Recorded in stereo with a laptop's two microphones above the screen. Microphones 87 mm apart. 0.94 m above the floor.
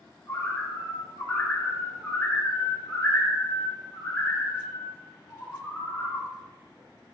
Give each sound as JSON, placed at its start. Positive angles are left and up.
{"t": 0.3, "sound": "a bird", "side_deg": 20, "distance_m": 2.0}